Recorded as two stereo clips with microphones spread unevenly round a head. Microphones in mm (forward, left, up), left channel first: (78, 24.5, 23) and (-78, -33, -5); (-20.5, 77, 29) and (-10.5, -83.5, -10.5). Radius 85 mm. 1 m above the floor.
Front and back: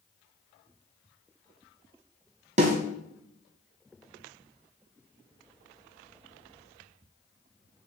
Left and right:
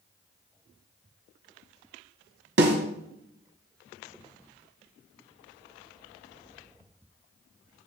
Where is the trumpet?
I don't hear a trumpet.